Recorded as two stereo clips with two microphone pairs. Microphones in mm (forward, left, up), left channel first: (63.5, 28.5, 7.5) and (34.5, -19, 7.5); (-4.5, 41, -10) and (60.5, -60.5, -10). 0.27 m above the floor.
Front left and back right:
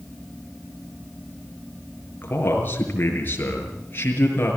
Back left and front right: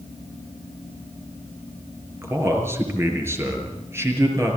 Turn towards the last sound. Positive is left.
turn(degrees=10)